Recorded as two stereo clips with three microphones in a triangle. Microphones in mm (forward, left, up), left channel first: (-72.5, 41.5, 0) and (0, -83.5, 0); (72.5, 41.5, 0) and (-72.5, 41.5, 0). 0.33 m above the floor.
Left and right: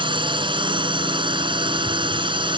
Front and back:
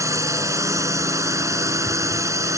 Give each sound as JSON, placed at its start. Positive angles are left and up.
{"t": 0.0, "sound": "a drone", "azimuth_deg": -115}